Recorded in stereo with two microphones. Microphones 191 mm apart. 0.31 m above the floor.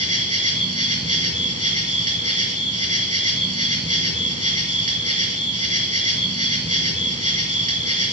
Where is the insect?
40° right (ahead or behind), 1.2 m.